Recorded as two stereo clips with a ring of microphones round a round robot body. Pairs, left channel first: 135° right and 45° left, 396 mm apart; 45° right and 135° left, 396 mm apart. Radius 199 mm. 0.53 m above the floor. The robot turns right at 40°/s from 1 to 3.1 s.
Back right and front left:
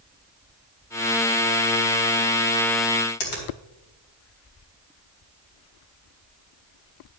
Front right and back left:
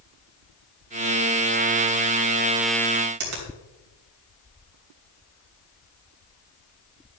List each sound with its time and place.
3.2 s a finger snap: straight behind, 3 m